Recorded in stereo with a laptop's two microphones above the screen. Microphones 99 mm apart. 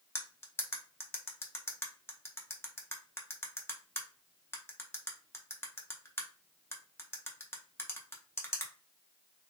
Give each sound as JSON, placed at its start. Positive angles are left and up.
{"t": 0.1, "sound": "cutlery clinking", "side_deg": 25, "distance_m": 0.5}